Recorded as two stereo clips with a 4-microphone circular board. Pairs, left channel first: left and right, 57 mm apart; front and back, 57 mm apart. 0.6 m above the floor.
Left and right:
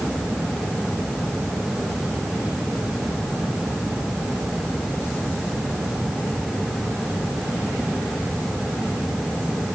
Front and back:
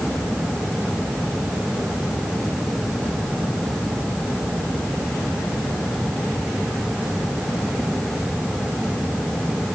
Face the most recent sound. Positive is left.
No sound to turn to.